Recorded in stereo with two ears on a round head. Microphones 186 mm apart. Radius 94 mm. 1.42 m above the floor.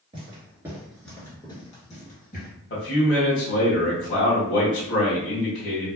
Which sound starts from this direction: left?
A man speaking, at 2.7 s.